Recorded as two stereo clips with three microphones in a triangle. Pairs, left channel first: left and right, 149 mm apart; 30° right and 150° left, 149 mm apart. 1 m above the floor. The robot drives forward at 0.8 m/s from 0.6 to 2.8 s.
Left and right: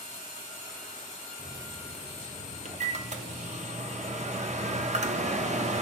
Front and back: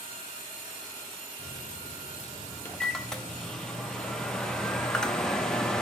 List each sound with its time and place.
1.4 s a microwave: 30° right, 1.1 m; by 5.8 s 115° right, 0.6 m